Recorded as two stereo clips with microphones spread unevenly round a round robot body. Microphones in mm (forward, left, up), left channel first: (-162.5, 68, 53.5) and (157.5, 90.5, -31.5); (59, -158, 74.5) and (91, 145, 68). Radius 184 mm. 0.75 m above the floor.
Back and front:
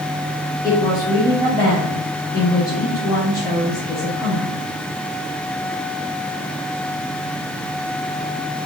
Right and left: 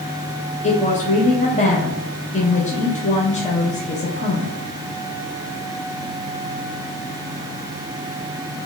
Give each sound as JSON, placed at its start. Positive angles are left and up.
{"t": 0.6, "sound": "a woman speaking", "azimuth_deg": -80, "distance_m": 1.0}